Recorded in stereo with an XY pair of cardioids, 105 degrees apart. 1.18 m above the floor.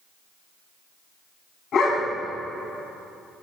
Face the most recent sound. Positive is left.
turn(degrees=65)